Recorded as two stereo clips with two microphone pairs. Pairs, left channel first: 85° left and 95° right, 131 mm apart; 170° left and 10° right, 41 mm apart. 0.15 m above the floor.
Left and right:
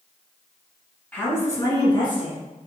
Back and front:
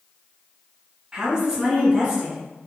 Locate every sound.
1.1 s a woman speaking: 25° left, 1.4 m; by 2.4 s 60° left, 2 m